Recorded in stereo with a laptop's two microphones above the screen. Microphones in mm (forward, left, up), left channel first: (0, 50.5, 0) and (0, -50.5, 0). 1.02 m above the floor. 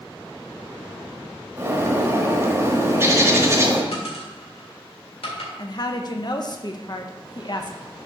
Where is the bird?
25° right (ahead or behind), 1.0 m.